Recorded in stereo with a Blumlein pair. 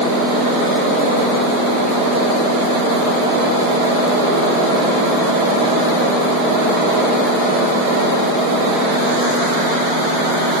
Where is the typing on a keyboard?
I don't hear typing on a keyboard.